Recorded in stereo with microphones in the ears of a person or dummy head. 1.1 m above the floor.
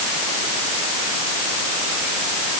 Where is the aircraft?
No aircraft in this recording.